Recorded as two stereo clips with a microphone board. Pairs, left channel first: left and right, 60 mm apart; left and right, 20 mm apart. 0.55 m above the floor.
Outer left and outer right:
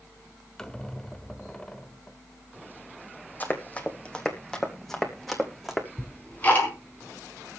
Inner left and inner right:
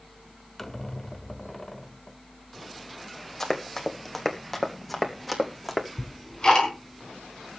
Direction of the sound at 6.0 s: 25° left (ahead or behind).